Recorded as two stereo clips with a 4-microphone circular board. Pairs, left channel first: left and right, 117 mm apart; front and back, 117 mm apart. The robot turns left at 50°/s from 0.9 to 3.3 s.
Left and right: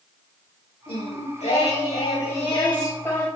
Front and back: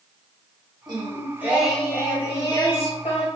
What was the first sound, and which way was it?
Singing, 130° left.